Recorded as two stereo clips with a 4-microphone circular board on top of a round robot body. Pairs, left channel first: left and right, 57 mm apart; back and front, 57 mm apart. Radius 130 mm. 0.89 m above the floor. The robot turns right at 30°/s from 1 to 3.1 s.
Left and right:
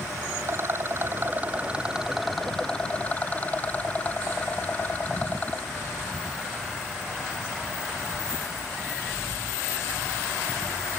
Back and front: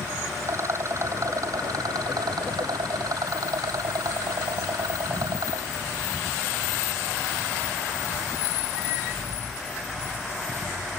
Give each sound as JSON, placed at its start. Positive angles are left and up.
{"t": 0.4, "sound": "a rattle", "azimuth_deg": -40}